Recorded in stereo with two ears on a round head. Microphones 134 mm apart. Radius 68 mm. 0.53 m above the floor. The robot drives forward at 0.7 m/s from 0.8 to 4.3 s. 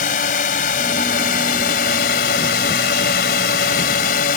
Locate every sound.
0.0 s a drone: 55° left (ahead or behind); by 4.4 s 65° left (ahead or behind)